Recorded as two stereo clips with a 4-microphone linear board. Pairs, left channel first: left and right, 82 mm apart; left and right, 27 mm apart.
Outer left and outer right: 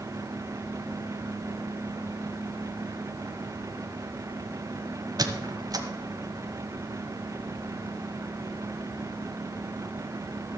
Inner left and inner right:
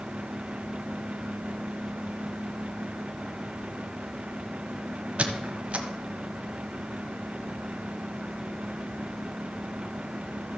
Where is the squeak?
55° right (ahead or behind), 1.1 m.